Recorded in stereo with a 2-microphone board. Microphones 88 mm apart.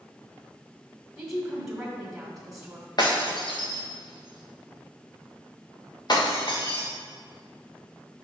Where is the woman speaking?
5° right (ahead or behind), 1.6 m.